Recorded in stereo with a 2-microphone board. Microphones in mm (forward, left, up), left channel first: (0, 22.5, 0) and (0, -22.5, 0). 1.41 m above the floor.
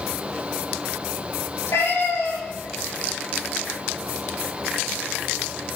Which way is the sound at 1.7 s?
75° left (ahead or behind).